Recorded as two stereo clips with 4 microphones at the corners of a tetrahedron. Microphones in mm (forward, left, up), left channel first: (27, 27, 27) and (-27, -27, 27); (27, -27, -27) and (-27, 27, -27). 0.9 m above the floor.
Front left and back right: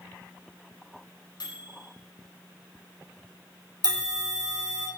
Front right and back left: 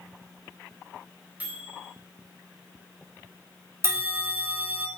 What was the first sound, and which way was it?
A microwave, 65° left.